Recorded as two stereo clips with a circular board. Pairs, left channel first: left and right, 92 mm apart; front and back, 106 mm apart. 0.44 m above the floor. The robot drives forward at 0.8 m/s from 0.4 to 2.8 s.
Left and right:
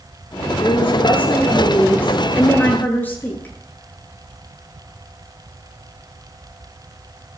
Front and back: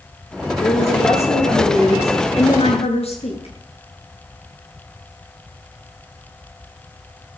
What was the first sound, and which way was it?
A woman speaking, 15° left.